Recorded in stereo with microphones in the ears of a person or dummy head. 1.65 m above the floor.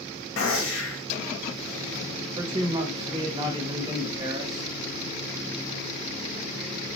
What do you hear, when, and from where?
0.4 s a gunshot: 65° left (ahead or behind), 0.8 m
2.4 s a man speaking: 20° right (ahead or behind), 0.7 m